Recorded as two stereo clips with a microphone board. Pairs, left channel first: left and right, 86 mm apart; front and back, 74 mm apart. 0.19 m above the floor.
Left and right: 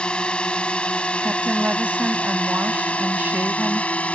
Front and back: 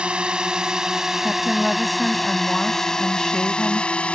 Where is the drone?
140° left; by 4.1 s 45° left.